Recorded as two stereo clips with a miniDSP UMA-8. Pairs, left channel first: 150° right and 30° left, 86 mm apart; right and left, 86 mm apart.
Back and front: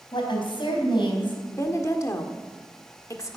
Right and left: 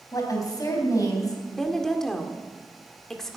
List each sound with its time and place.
0.1 s a woman speaking: 135° right, 3.5 m
1.4 s a woman speaking: 170° right, 1.6 m